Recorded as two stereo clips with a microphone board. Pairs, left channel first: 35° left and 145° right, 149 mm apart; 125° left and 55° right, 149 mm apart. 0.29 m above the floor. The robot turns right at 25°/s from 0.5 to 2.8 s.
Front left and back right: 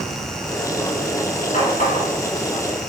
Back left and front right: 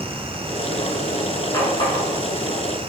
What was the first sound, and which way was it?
A running tap, 60° left.